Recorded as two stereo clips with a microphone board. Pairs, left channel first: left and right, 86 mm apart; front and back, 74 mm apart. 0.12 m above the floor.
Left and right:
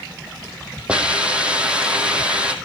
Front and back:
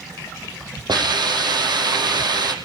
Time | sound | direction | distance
0.9 | a hiss | 165° right | 4 m